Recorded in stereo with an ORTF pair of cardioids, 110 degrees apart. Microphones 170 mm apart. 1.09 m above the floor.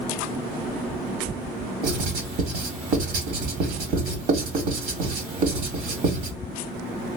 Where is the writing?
60° right, 1.5 m.